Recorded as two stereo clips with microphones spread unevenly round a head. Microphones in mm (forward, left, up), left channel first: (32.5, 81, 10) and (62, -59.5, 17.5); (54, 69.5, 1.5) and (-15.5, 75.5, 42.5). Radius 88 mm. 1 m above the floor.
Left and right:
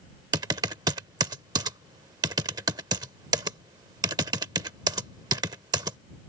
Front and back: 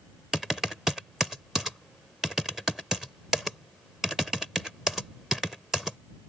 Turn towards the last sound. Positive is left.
turn(degrees=-135)